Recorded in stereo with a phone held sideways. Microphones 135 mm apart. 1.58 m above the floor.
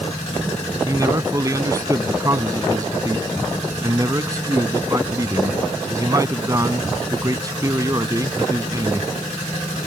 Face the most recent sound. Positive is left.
turn(degrees=-25)  # may be behind; listen again after turning